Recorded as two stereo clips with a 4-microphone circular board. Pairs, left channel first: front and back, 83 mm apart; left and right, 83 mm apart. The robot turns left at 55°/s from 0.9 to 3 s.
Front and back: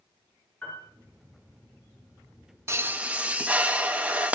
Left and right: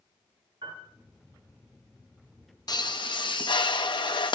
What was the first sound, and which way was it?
A piano, 70° right.